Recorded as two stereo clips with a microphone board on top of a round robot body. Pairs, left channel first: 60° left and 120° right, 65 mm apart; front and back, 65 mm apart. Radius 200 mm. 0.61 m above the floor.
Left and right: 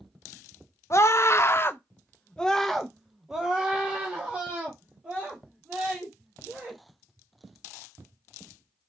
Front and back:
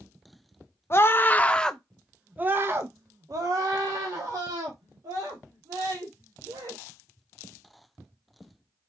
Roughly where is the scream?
Ahead left.